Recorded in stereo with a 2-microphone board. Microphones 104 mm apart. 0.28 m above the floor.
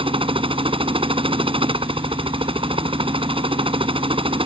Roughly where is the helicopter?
Right.